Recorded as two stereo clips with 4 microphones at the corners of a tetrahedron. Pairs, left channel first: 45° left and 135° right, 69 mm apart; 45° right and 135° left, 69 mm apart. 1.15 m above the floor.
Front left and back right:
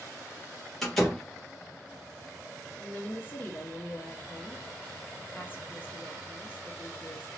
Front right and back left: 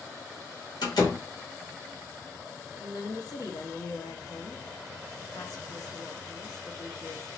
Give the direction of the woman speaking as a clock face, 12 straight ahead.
1 o'clock.